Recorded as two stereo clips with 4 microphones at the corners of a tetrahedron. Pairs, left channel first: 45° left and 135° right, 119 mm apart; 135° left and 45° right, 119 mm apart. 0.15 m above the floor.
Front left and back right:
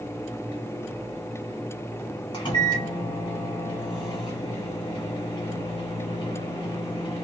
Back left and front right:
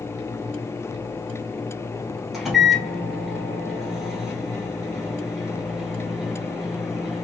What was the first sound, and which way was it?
A microwave, 45° left.